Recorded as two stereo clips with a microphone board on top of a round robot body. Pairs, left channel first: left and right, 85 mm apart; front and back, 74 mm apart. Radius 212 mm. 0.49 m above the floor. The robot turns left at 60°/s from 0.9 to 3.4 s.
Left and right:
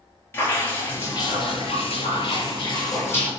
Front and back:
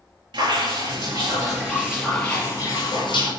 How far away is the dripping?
About 6 m.